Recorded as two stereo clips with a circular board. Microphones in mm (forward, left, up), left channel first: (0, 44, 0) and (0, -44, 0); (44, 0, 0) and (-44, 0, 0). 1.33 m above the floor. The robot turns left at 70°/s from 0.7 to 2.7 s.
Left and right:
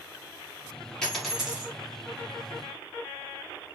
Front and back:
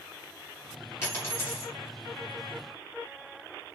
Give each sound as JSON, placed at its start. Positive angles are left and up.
{"t": 1.0, "sound": "a dropped coin", "azimuth_deg": 15, "distance_m": 1.4}